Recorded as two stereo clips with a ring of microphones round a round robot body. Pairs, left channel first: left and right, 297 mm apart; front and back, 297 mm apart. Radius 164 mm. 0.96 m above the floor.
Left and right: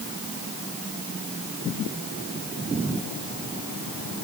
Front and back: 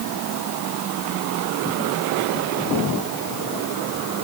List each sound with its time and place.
Only background noise.